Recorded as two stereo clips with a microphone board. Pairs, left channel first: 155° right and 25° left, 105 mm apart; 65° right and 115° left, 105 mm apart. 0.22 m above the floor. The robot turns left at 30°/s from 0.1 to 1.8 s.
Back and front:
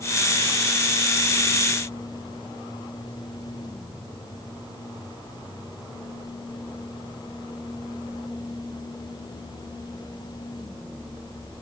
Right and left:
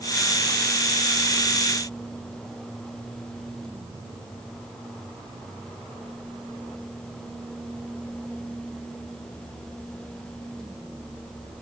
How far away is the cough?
No cough in this recording.